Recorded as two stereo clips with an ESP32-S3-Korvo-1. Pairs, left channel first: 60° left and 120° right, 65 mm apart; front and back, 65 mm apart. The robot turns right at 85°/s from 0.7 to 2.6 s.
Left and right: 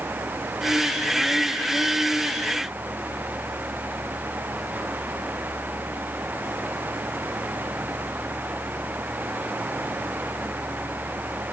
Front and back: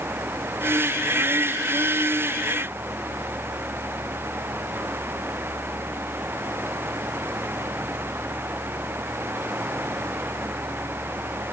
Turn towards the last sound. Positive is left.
No sound to turn to.